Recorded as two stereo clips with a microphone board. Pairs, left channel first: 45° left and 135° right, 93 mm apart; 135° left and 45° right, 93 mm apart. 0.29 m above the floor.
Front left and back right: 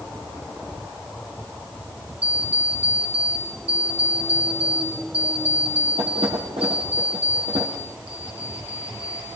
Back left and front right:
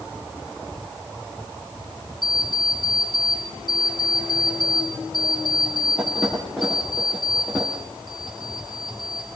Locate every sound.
2.2 s an alarm clock: 135° right, 7 m